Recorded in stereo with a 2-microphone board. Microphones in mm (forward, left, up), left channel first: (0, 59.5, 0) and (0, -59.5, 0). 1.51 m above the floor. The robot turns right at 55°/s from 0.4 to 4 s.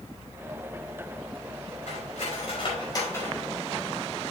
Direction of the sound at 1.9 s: 85° left.